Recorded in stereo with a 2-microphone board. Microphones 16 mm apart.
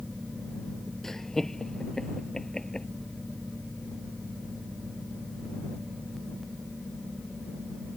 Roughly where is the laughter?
Left.